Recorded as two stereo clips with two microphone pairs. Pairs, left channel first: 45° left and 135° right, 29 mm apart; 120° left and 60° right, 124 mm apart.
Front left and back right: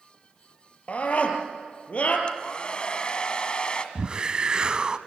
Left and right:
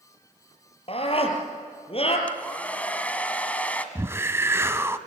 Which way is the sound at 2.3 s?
50° left.